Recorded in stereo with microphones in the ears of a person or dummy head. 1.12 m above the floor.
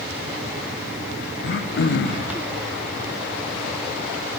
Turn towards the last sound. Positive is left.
turn(degrees=45)  # may be behind; listen again after turning